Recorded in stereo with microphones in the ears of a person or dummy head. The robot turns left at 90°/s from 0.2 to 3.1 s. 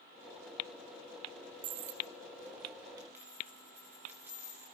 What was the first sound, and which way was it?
A dropped coin, 30° right (ahead or behind).